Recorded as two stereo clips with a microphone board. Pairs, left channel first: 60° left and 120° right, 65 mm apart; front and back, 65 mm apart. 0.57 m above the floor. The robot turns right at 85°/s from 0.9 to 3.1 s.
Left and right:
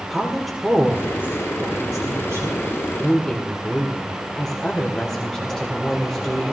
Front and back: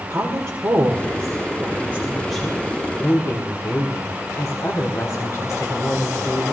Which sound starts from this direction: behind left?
A woman speaking, at 0.1 s.